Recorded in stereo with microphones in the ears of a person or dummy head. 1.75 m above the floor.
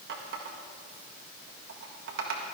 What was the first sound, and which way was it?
A running tap, 60° right (ahead or behind).